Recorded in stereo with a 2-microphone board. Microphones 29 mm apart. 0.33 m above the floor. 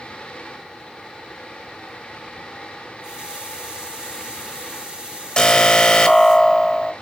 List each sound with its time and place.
3.0 s a running tap: 30° right (ahead or behind), 4 m
5.4 s an alarm: 25° left (ahead or behind), 0.9 m